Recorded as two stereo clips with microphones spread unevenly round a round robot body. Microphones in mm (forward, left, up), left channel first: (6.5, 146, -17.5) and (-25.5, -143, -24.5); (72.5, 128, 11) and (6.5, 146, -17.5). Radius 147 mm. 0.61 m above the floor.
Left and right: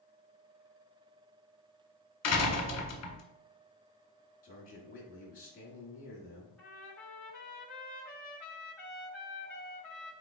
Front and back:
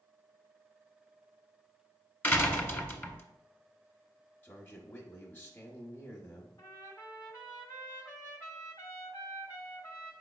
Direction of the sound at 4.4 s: 65° left.